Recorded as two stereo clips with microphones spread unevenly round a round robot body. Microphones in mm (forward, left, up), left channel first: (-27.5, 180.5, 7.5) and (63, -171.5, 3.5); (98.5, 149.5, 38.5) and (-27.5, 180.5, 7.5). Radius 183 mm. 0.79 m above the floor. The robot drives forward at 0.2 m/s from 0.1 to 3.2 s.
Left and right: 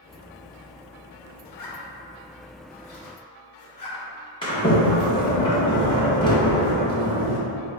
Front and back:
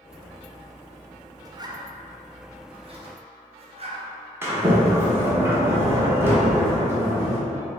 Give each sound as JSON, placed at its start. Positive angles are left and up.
{"t": 1.4, "sound": "a zipper", "azimuth_deg": 120, "distance_m": 0.7}
{"t": 4.4, "sound": "a sliding door", "azimuth_deg": 170, "distance_m": 0.9}